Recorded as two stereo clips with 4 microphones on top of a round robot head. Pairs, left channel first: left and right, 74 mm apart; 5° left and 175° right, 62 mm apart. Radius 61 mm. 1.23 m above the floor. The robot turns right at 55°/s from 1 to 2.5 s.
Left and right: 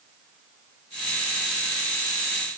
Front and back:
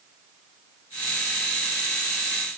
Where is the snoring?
No snoring in this recording.